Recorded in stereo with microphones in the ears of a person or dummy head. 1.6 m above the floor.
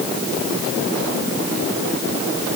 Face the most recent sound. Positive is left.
No sound to turn to.